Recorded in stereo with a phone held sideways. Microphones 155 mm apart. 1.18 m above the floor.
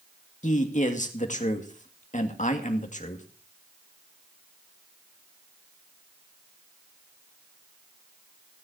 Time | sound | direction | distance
0.4 | a man speaking | 50° left (ahead or behind) | 2 m